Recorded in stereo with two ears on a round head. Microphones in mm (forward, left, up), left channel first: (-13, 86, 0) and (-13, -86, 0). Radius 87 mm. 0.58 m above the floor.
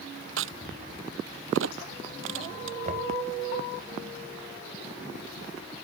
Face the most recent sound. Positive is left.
turn(degrees=-40)  # may be behind; listen again after turning